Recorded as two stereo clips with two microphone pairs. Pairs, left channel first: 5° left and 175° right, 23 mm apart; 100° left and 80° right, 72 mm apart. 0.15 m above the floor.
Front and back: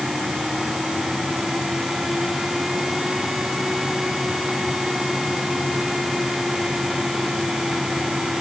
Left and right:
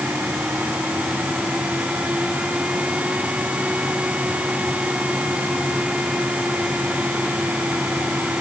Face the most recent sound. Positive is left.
No sound to turn to.